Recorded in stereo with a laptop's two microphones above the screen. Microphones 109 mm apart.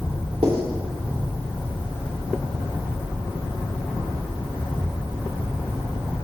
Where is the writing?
60° right (ahead or behind), 2.5 m.